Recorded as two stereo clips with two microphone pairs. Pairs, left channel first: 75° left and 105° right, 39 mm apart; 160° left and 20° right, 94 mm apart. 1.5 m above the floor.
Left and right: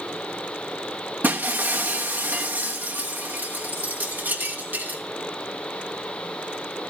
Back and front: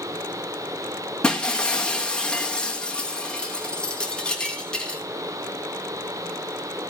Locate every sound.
1.2 s breaking glass: 125° right, 1.1 m